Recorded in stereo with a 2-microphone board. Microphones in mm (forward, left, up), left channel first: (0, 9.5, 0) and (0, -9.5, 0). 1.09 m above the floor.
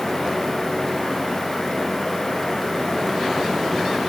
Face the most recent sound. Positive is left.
No sound to turn to.